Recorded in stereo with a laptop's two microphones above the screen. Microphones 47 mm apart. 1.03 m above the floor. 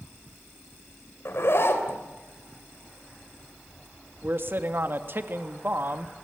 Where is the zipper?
60° left (ahead or behind), 4 m.